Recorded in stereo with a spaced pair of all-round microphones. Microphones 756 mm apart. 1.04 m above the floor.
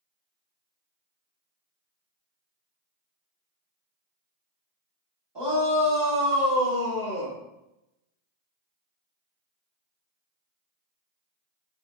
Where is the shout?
35° right (ahead or behind), 2 m; by 7.4 s 15° right (ahead or behind), 3.5 m.